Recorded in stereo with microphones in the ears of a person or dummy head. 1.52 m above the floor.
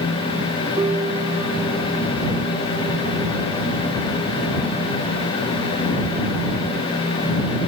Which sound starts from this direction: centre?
A piano, at 0.8 s.